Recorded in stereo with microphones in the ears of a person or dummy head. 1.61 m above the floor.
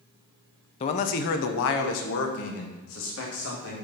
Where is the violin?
I don't hear a violin.